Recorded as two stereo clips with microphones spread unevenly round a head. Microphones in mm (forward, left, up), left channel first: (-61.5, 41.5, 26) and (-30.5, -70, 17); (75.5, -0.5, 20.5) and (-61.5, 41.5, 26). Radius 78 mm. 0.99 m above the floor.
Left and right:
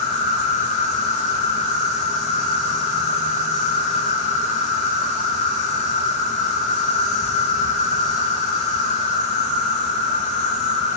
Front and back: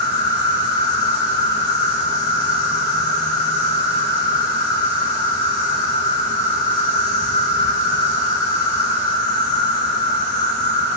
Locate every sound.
0.0 s an insect: 5° right, 2 m